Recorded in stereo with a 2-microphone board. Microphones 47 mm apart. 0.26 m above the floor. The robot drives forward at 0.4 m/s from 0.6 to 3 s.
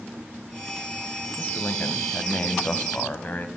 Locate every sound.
1.4 s a man speaking: 40° left (ahead or behind), 1.5 m